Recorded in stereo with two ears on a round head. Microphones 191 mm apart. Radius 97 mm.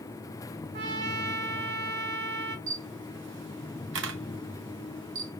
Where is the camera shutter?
55° right (ahead or behind), 0.7 m.